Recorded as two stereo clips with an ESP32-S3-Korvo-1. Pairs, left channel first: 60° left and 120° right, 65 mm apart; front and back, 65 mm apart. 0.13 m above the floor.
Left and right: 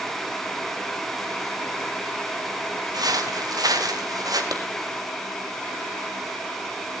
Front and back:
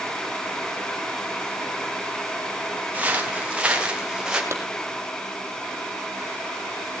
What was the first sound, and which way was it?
Footsteps, 115° right.